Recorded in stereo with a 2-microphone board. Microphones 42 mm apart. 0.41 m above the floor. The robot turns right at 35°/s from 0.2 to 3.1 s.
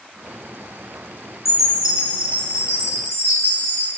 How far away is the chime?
About 0.9 m.